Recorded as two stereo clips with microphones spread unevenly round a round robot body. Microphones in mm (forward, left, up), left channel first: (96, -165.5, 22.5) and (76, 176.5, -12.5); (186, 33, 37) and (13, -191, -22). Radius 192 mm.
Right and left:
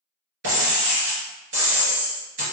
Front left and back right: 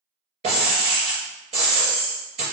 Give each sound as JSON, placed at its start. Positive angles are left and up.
{"t": 0.4, "sound": "breaking glass", "azimuth_deg": 155, "distance_m": 1.8}